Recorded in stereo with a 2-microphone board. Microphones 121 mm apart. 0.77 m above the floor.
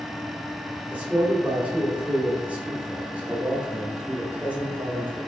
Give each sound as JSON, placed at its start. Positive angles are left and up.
{"t": 0.9, "sound": "a man speaking", "side_deg": -10, "distance_m": 2.0}